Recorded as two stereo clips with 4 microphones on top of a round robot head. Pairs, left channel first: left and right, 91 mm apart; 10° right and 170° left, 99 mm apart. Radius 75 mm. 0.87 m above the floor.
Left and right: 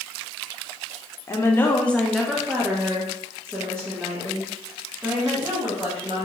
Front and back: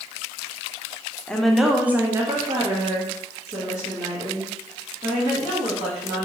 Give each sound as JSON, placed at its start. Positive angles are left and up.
{"t": 1.3, "sound": "a woman speaking", "azimuth_deg": 65, "distance_m": 0.6}